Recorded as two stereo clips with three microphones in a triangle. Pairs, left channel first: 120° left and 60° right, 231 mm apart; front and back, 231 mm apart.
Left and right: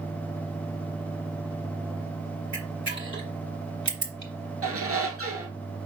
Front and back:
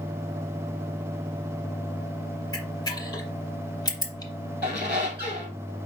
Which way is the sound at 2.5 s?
70° right.